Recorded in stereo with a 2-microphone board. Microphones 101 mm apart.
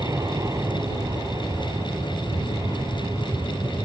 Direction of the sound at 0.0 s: 35° right (ahead or behind).